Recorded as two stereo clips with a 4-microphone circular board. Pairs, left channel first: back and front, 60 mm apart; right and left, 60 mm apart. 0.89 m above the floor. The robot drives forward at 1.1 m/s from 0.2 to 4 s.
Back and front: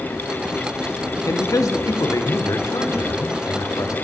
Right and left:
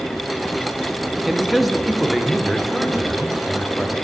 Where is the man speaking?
Straight behind, 1.3 m.